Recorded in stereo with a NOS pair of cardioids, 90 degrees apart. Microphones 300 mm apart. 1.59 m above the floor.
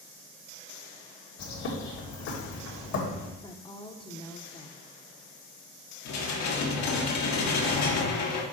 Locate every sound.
1.4 s a bird: 70° left, 1.9 m
3.4 s a woman speaking: 15° left, 1.0 m
6.0 s dishes clattering: 70° left, 1.7 m